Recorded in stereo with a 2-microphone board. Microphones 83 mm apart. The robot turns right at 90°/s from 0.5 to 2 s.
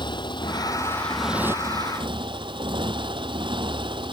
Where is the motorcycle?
115° left; by 4.1 s 110° right.